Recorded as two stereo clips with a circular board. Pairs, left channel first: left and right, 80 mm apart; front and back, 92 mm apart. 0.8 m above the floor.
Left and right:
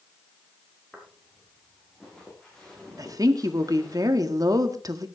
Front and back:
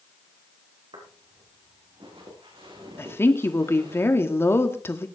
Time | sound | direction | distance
0.9 | footsteps | 175° left | 7 m
3.0 | a woman speaking | 60° right | 1.7 m